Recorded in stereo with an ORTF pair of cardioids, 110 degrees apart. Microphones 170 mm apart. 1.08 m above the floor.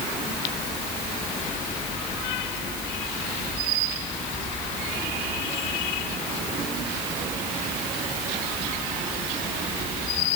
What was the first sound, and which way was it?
Only background noise.